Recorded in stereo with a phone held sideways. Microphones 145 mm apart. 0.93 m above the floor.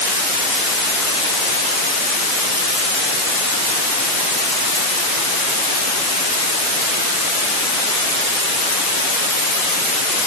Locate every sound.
Only background noise.